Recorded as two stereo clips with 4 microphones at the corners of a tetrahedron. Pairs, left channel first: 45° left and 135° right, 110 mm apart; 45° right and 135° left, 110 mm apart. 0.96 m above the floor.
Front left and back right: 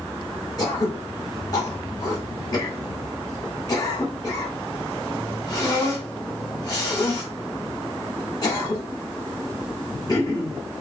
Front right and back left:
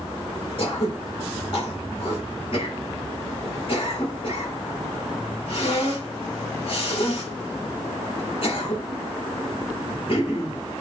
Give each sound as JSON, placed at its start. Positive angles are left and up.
{"t": 0.6, "sound": "throat clearing", "azimuth_deg": -10, "distance_m": 1.9}